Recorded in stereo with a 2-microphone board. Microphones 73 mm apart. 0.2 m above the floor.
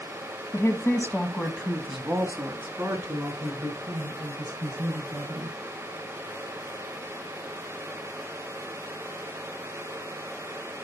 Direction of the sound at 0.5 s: 40° left (ahead or behind).